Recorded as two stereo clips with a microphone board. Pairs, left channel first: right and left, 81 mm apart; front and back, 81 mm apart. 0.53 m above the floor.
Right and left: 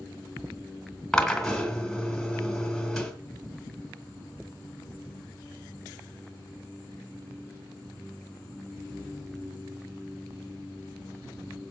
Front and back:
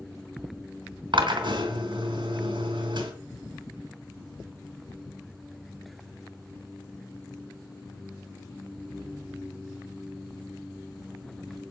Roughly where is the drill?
Behind.